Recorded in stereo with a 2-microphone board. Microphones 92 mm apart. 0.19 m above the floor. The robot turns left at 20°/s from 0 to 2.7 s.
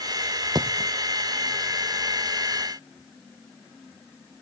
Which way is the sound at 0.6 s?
50° right (ahead or behind).